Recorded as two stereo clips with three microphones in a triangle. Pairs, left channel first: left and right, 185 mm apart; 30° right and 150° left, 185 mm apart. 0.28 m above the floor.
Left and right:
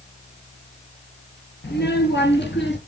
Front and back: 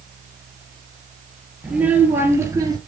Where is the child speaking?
65° left, 4.5 m; by 2.8 s 80° left, 4 m.